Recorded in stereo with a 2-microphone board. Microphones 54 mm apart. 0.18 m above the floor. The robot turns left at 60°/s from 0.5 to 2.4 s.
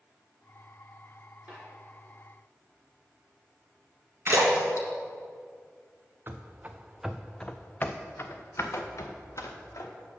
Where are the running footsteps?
40° right (ahead or behind), 0.9 m; by 9.9 s 70° left (ahead or behind), 1.9 m.